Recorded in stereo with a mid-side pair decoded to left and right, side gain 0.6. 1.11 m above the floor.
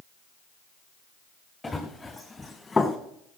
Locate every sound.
1.6 s running footsteps: 10° left, 4.5 m; by 3.0 s 20° left, 4 m